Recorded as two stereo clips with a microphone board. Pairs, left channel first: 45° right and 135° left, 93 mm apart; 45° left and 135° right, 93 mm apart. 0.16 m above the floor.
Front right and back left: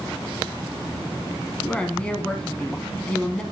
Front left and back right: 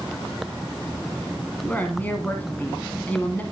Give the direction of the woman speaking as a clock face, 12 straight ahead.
12 o'clock.